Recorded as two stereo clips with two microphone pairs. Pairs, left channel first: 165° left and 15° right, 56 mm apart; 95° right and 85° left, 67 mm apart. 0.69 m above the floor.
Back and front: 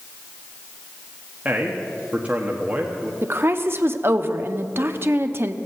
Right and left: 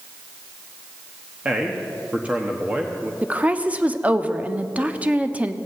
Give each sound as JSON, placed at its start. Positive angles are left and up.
{"t": 1.4, "sound": "a man speaking", "azimuth_deg": 30, "distance_m": 1.2}
{"t": 3.2, "sound": "a woman speaking", "azimuth_deg": 20, "distance_m": 0.9}